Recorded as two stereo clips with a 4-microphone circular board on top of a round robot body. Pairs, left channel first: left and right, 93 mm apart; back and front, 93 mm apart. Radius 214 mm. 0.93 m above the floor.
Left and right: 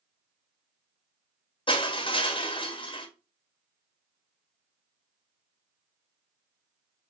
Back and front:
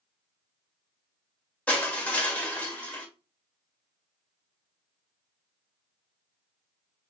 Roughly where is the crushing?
Left.